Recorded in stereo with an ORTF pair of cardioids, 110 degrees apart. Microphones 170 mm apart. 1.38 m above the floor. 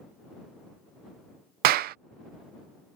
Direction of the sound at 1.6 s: 65° right.